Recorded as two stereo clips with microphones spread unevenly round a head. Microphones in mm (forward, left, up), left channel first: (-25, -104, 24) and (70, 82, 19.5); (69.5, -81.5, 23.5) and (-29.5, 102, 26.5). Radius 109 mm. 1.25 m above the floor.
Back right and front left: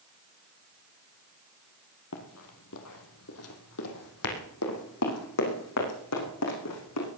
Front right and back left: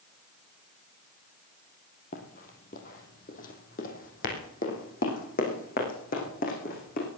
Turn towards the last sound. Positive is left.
turn(degrees=-115)